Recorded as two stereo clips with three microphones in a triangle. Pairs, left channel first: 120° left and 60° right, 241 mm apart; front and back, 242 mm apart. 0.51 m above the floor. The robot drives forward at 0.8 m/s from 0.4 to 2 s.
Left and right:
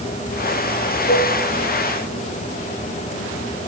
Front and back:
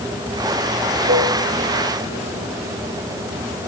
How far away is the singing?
I don't hear singing.